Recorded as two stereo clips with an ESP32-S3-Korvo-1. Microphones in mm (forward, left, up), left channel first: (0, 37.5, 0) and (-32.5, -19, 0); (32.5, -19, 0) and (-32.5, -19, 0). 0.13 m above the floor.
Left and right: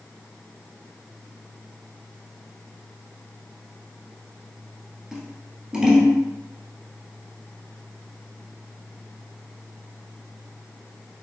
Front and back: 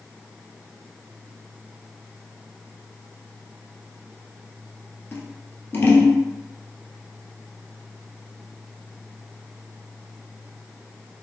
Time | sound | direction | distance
5.1 | scissors | 45° right | 0.8 m